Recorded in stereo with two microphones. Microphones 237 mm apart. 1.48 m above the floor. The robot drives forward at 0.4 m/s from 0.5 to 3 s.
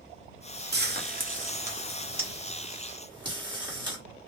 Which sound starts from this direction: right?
Frying, at 0.7 s.